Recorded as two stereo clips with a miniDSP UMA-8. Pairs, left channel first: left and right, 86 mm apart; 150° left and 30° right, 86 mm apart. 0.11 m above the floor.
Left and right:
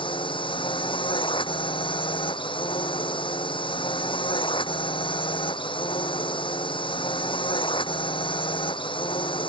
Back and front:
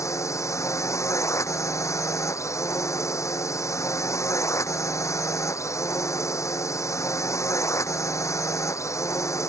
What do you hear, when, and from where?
0.0 s a drone: 95° left